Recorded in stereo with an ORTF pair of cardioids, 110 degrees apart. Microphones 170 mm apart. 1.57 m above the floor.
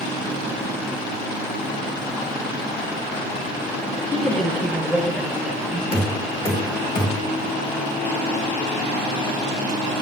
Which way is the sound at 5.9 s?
30° left.